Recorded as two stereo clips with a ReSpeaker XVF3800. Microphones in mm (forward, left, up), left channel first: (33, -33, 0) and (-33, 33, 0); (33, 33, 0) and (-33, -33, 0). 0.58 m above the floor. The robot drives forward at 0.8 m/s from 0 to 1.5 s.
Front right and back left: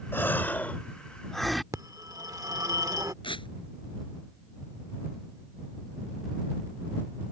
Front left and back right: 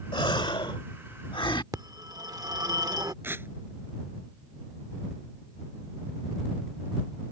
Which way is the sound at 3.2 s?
70° right.